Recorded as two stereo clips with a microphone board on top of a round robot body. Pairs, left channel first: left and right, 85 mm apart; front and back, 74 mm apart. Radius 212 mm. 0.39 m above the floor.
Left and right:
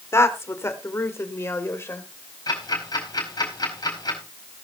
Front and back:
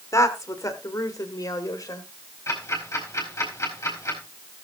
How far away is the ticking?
About 4.5 m.